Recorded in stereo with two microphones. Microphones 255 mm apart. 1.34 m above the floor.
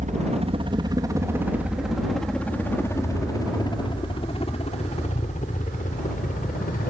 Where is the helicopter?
30° right (ahead or behind); by 6.9 s 35° left (ahead or behind).